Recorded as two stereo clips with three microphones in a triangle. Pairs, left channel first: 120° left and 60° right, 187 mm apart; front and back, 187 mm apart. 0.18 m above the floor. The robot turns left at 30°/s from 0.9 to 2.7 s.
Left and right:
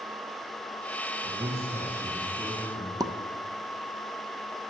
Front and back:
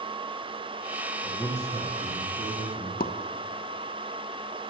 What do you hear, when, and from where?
1.2 s a man speaking: 105° right, 5 m; by 2.9 s 150° right, 5 m
3.0 s a pop: 5° left, 0.5 m